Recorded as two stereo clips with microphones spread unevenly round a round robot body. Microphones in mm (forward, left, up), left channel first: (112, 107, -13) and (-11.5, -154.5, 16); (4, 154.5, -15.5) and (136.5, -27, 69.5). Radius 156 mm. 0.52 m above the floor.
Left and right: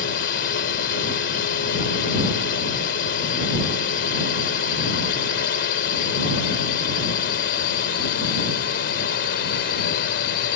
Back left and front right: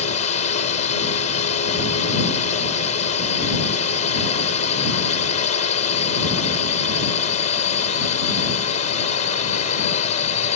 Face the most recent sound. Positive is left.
turn(degrees=115)